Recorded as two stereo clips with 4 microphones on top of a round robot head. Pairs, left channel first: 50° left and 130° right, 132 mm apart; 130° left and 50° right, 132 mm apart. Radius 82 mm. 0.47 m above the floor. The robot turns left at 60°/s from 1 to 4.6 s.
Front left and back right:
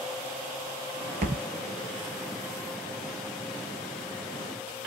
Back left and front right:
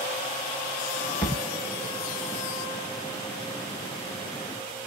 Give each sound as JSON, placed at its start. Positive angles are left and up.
{"t": 1.2, "sound": "a thud", "azimuth_deg": -170, "distance_m": 0.6}